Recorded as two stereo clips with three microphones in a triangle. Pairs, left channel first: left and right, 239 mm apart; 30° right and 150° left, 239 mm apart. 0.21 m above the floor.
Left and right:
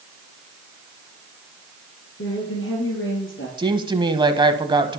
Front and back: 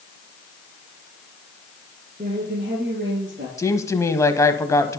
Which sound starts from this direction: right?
A woman speaking, at 3.6 s.